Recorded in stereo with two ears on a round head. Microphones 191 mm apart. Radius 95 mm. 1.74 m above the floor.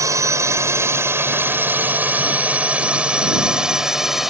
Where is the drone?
15° right (ahead or behind); by 4.3 s centre (ahead or behind).